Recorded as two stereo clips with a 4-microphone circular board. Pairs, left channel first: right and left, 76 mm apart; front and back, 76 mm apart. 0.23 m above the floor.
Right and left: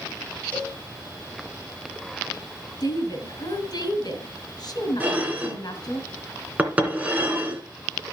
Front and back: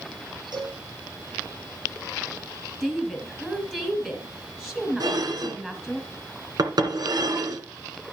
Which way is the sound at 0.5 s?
160° right.